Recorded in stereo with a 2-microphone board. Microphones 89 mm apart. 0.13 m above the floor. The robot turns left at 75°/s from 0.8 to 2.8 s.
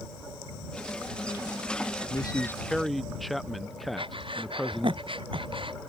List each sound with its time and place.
2.1 s a man speaking: 55° left; by 5.0 s straight ahead
4.0 s breathing: 75° right (ahead or behind)